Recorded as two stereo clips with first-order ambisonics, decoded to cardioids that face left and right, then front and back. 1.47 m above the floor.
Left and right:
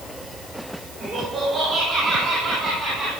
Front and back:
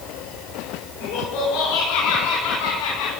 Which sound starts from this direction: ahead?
Laughter, at 1.0 s.